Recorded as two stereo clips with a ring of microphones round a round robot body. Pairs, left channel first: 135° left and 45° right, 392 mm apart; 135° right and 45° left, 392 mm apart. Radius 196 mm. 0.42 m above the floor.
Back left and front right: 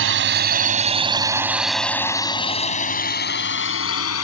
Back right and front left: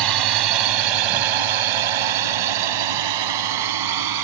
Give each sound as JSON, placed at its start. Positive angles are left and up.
{"t": 0.0, "sound": "a drone", "azimuth_deg": 15}